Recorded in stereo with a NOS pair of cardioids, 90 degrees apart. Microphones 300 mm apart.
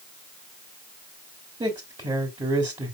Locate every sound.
1.6 s a man speaking: 15° right, 3 m